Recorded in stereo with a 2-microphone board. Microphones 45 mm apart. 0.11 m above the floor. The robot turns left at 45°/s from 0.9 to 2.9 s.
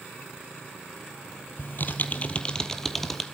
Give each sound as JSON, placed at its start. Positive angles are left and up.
{"t": 1.6, "sound": "typing on a keyboard", "azimuth_deg": 65, "distance_m": 1.0}